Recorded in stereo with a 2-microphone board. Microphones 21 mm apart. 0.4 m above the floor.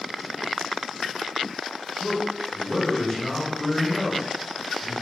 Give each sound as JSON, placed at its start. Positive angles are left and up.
{"t": 2.0, "sound": "a man speaking", "side_deg": 20, "distance_m": 1.6}